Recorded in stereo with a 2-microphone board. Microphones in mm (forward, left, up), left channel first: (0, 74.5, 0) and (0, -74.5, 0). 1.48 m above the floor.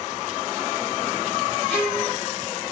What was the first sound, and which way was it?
A violin, 10° left (ahead or behind).